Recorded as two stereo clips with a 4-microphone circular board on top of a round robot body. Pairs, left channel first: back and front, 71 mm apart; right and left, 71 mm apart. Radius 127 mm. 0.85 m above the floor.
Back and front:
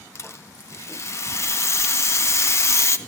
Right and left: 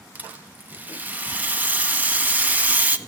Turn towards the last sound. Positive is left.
turn(degrees=150)